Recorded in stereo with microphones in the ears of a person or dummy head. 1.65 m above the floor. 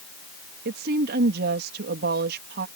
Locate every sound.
0.7 s a woman speaking: 65° right (ahead or behind)